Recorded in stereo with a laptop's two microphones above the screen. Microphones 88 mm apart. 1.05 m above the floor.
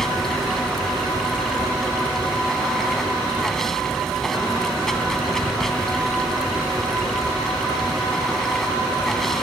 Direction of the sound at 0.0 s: 5° left (ahead or behind).